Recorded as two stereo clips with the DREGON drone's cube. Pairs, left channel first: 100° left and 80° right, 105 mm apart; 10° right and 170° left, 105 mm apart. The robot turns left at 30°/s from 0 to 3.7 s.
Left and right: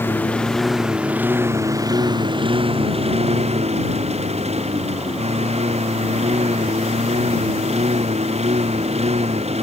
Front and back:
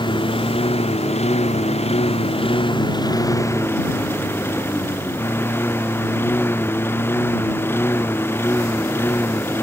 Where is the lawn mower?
30° left; by 9.7 s 80° right.